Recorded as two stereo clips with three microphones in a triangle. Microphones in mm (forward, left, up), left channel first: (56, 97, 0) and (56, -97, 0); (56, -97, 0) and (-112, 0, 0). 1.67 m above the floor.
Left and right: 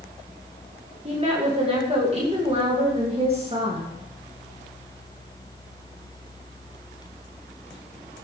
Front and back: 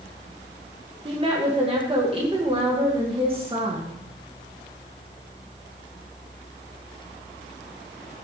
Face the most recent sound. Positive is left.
turn(degrees=-150)